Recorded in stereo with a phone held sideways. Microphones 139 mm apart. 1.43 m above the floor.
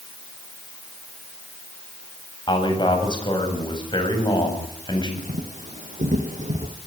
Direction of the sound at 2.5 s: 35° left (ahead or behind).